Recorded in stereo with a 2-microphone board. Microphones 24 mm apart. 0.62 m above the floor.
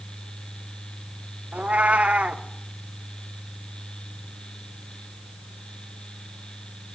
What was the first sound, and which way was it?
A cat meowing, 70° right (ahead or behind).